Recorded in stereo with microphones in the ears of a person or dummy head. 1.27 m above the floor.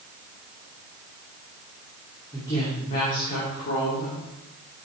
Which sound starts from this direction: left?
A woman speaking, at 2.3 s.